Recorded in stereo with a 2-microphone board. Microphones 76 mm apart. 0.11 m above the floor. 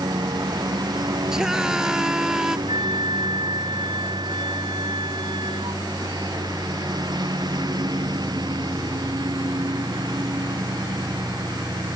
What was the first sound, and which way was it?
A lawn mower, 60° right (ahead or behind).